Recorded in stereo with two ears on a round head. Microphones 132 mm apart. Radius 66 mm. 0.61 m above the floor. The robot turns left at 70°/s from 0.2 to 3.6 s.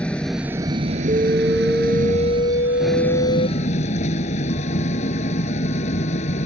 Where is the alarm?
140° right; by 3.5 s 55° left.